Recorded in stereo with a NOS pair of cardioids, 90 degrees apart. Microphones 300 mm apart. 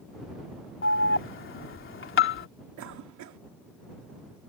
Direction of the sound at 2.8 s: 70° right.